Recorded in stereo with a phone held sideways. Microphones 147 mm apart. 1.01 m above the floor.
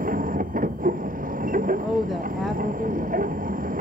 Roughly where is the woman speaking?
Centre.